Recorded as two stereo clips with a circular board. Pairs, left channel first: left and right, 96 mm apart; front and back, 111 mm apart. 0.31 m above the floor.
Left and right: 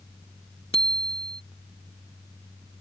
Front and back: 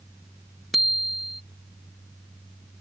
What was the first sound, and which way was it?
A bicycle bell, 90° left.